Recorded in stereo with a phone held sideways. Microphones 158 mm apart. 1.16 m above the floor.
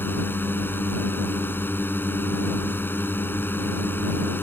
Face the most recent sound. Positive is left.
turn(degrees=15)  # may be behind; listen again after turning